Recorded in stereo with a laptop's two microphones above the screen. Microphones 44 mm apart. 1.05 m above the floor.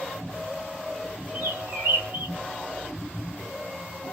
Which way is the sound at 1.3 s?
60° right (ahead or behind).